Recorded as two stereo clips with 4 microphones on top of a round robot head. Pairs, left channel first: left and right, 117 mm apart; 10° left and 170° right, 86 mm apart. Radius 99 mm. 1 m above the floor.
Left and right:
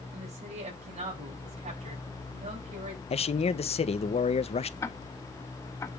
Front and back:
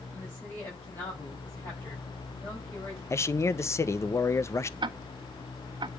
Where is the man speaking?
65° left, 0.9 m.